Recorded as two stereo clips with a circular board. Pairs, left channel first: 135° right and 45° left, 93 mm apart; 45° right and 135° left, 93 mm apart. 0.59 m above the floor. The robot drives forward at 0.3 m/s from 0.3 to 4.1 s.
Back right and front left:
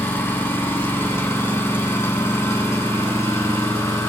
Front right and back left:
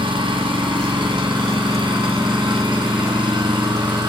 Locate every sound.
0.0 s an engine running: 160° left, 3 m; by 4.1 s 165° left, 4 m